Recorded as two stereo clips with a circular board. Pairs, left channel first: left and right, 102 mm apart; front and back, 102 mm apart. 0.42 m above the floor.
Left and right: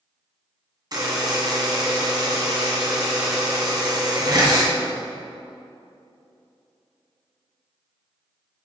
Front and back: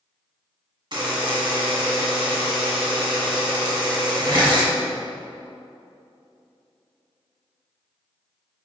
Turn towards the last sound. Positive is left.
turn(degrees=-140)